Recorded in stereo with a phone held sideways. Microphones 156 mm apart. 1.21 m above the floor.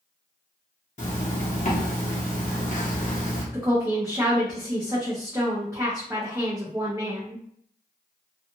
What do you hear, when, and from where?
1.0 s a zipper: 50° left (ahead or behind), 1.0 m
3.5 s a woman speaking: 20° right (ahead or behind), 0.7 m